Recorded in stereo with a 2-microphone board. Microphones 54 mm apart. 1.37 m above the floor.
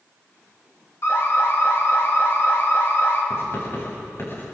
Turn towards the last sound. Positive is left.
turn(degrees=50)  # may be behind; listen again after turning